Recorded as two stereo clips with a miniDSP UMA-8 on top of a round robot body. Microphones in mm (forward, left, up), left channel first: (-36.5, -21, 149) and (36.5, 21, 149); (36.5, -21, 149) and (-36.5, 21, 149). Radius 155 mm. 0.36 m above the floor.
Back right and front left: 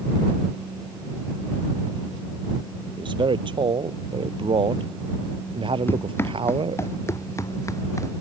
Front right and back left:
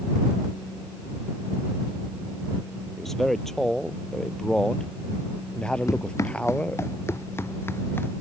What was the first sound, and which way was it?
A man speaking, 60° left.